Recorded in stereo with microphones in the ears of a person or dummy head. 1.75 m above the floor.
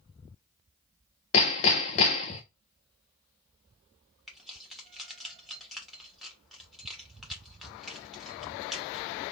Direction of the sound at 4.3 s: 5° right (ahead or behind).